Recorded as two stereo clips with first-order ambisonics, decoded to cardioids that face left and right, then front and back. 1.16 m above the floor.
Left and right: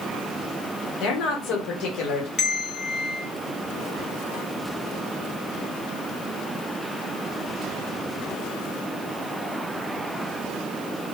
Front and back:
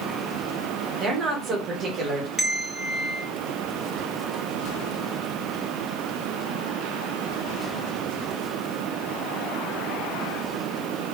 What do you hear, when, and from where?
1.0 s a woman speaking: 120° left, 1.1 m
2.4 s a bell: 75° left, 0.9 m